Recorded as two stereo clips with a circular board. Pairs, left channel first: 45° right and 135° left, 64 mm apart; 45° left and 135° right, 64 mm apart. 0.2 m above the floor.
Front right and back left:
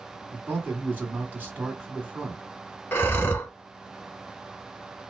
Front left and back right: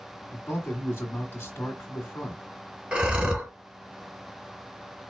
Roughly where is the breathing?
Right.